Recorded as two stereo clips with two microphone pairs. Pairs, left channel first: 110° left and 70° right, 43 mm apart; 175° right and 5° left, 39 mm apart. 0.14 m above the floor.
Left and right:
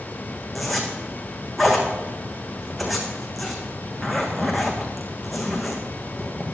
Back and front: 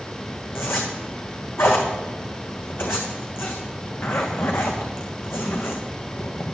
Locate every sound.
0.6 s a zipper: 160° right, 2 m